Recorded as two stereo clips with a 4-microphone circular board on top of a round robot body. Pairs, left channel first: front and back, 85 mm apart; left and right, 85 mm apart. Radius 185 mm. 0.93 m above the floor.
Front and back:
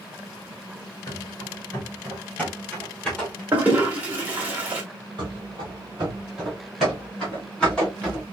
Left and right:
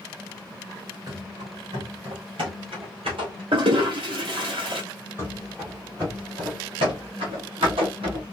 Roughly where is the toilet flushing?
Right.